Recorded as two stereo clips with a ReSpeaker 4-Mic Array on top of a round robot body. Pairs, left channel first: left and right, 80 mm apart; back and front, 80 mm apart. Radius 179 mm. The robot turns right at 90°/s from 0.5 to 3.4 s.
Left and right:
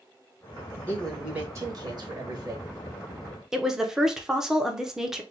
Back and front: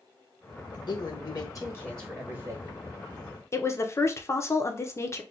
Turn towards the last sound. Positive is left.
turn(degrees=-170)